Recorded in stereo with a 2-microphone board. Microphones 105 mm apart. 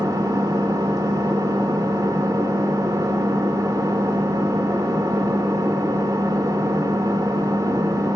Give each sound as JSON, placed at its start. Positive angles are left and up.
{"t": 0.0, "sound": "an engine running", "side_deg": -35, "distance_m": 1.4}